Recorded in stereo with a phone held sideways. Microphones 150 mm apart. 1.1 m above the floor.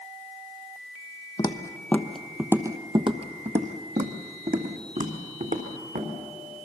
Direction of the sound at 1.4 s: 30° left (ahead or behind).